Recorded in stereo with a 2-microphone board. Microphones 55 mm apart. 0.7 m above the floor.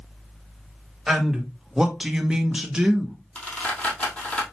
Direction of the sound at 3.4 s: 25° left (ahead or behind).